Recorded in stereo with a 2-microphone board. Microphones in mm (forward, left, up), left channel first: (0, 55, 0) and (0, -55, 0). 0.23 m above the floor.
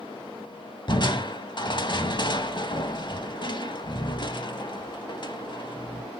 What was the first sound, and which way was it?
Crushing, 45° left (ahead or behind).